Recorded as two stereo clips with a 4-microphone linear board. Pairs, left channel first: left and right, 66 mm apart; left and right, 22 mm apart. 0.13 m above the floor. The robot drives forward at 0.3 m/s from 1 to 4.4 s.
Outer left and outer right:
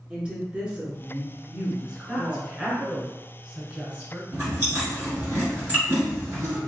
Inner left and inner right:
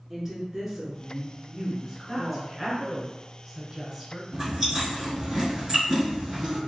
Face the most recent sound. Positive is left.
turn(degrees=-25)  # may be behind; listen again after turning